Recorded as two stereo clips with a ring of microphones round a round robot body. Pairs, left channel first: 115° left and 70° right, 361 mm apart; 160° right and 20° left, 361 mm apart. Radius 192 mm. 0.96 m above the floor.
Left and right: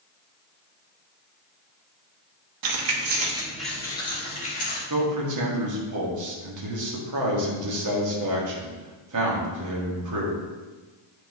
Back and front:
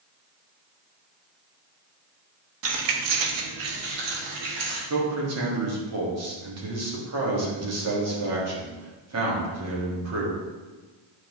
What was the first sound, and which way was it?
Keys jangling, 35° right.